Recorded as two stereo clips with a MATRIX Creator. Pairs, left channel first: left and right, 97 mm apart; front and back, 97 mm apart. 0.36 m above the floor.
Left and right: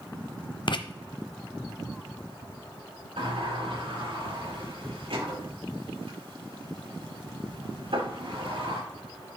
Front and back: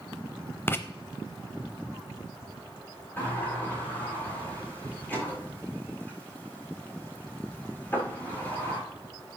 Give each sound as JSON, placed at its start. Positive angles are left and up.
{"t": 0.7, "sound": "writing", "azimuth_deg": 65, "distance_m": 0.7}
{"t": 3.2, "sound": "a sliding door", "azimuth_deg": -70, "distance_m": 5.5}